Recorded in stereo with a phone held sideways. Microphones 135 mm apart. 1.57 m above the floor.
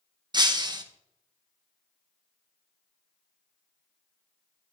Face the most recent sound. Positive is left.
turn(degrees=-35)  # may be behind; listen again after turning